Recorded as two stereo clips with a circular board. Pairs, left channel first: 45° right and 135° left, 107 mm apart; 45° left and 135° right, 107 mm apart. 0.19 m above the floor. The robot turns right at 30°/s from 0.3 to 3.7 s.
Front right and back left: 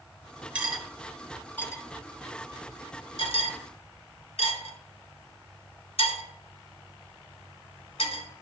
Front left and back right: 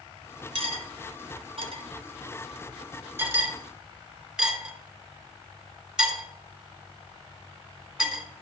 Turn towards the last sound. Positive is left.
turn(degrees=-55)